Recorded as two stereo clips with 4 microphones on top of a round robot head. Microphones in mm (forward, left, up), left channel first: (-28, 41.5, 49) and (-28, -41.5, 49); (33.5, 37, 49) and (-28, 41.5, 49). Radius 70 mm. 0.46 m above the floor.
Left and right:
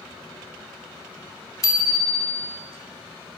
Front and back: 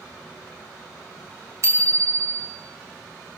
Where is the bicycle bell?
135° left, 2.5 m.